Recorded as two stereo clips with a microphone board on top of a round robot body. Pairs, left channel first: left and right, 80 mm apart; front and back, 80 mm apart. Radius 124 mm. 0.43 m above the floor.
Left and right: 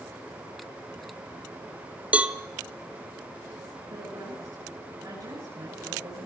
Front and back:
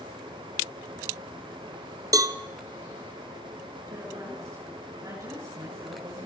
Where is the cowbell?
160° right, 1.1 m.